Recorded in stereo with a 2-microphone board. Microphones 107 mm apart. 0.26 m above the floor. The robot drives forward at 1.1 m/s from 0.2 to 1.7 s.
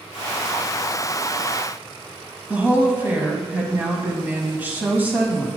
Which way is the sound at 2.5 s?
20° right (ahead or behind).